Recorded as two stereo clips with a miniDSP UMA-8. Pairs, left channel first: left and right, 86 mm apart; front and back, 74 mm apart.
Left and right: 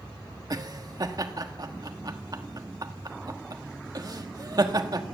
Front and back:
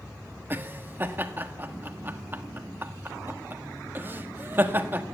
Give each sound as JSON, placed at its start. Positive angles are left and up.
{"t": 0.5, "sound": "laughter", "azimuth_deg": -125, "distance_m": 1.5}